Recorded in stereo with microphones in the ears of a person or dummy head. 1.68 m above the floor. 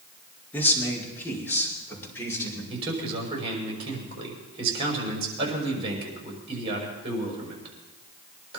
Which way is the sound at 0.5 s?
10° left (ahead or behind).